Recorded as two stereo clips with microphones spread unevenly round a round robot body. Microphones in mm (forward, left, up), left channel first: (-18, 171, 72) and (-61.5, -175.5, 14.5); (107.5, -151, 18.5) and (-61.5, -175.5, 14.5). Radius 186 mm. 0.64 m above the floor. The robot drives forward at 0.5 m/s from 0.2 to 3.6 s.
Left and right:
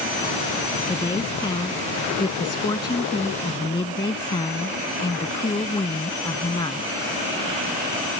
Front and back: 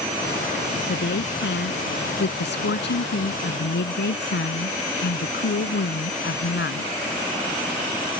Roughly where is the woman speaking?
Ahead.